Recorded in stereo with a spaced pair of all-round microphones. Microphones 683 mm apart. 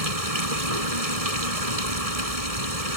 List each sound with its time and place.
0.0 s running water: 60° right (ahead or behind)